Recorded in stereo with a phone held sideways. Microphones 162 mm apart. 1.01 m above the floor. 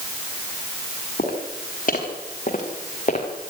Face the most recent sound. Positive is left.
turn(degrees=45)  # may be behind; listen again after turning